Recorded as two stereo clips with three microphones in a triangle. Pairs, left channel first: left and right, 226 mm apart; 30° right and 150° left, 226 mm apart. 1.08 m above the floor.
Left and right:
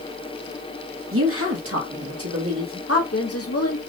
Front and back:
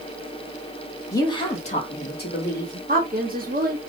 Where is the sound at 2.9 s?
100° left, 1.3 m.